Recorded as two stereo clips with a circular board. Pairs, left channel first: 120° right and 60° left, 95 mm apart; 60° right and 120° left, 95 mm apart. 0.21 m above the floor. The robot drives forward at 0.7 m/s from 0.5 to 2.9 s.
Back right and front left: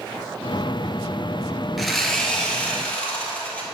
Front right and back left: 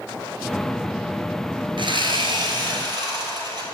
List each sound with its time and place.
1.8 s sawing: 150° left, 1.0 m; by 3.7 s 165° left, 1.7 m